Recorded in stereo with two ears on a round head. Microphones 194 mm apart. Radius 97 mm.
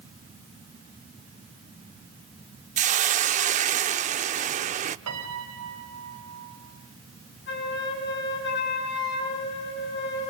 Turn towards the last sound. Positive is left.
turn(degrees=55)  # may be behind; listen again after turning